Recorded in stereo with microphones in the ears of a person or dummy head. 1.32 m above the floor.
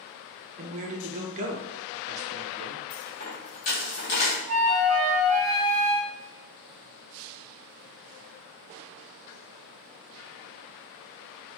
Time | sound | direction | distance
0.6 | a man speaking | 40° right (ahead or behind) | 0.6 m
2.9 | a dropped coin | 35° left (ahead or behind) | 1.1 m
4.5 | a flute | 15° right (ahead or behind) | 1.3 m